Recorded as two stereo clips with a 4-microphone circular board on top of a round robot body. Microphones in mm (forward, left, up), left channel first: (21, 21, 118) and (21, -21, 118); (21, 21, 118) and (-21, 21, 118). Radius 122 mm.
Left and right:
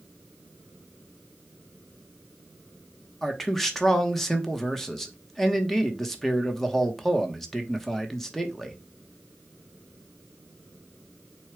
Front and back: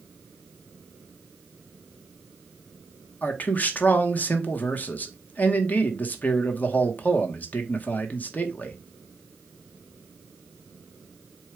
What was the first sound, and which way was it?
A man speaking, 10° left.